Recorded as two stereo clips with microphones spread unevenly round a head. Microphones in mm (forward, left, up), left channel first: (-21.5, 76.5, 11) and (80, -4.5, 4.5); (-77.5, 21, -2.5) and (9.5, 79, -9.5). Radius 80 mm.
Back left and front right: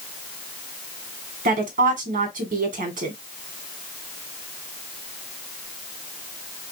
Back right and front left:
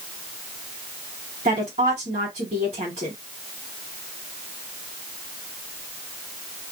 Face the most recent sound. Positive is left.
turn(degrees=-15)